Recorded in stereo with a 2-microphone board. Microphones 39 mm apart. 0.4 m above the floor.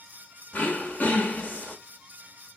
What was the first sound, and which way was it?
Throat clearing, 40° left (ahead or behind).